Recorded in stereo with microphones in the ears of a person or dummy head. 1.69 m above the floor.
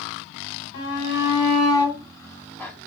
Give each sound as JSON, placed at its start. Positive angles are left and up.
{"t": 0.7, "sound": "a shout", "side_deg": 50, "distance_m": 1.8}